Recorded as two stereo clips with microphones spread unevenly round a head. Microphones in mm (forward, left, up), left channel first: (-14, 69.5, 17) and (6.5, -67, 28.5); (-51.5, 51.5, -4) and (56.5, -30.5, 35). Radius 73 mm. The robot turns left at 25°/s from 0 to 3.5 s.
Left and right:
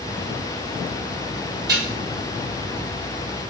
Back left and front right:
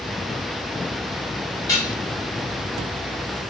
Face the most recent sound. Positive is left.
turn(degrees=170)